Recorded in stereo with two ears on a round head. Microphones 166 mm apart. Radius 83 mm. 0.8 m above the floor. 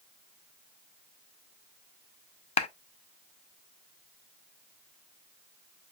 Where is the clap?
35° left (ahead or behind), 0.5 m.